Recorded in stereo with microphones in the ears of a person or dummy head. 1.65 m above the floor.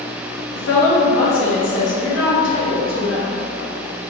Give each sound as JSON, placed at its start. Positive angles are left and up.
{"t": 0.6, "sound": "a woman speaking", "side_deg": 60, "distance_m": 1.2}